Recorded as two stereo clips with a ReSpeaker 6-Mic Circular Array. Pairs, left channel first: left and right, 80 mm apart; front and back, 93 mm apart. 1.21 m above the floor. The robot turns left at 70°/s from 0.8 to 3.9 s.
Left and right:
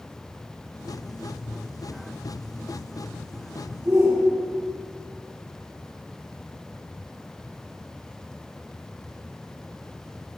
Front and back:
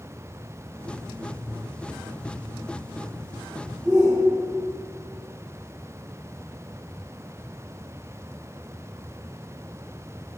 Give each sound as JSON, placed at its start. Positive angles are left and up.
{"t": 3.9, "sound": "a shout", "azimuth_deg": -130, "distance_m": 1.2}